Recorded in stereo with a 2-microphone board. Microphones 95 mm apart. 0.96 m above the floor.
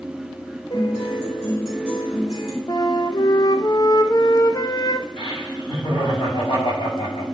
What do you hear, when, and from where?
0.7 s a guitar: 85° left, 3.5 m
2.7 s a flute: 45° left (ahead or behind), 0.6 m
5.2 s laughter: 80° left, 5.5 m